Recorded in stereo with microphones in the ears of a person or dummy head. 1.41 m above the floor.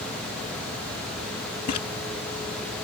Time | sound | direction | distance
1.7 | a splash | 45° left (ahead or behind) | ?